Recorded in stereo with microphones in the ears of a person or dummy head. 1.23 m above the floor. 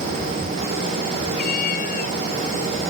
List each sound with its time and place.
1.4 s a cat meowing: 50° left (ahead or behind)